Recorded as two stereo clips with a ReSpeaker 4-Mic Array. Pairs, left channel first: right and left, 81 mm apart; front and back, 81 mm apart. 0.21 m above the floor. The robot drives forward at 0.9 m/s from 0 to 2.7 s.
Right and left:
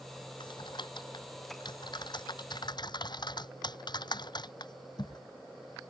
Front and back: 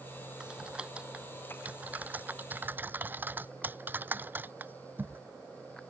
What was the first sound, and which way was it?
Typing on a keyboard, 100° right.